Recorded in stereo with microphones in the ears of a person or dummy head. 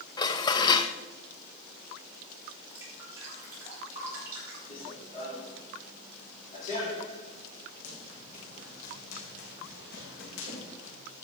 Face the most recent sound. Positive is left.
turn(degrees=60)  # may be behind; listen again after turning